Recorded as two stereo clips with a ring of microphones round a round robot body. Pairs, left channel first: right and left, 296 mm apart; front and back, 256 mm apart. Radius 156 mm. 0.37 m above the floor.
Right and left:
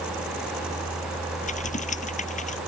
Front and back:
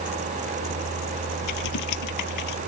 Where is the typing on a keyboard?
25° right.